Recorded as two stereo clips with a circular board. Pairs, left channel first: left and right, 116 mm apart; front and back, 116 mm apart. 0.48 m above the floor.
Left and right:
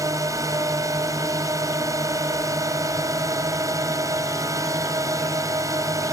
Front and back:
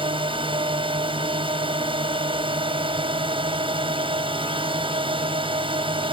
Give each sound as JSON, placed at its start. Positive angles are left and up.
{"t": 0.0, "sound": "a drone", "azimuth_deg": -150}